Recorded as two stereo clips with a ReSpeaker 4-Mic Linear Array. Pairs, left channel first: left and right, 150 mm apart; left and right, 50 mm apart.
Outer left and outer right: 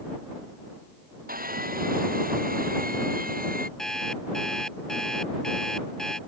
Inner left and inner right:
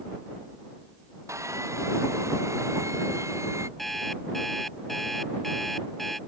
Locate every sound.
1.3 s sawing: 75° right (ahead or behind)
3.8 s an alarm clock: 5° left (ahead or behind)